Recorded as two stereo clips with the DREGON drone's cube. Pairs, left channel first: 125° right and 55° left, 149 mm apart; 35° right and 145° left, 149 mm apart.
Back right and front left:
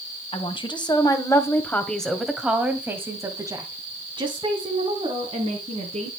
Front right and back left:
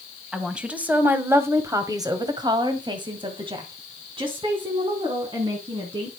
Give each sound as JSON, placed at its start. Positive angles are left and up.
{"t": 0.3, "sound": "a woman speaking", "azimuth_deg": -130, "distance_m": 1.8}